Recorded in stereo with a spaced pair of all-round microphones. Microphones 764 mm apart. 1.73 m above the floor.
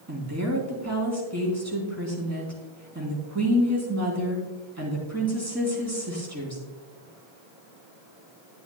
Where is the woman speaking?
20° right (ahead or behind), 3.5 m.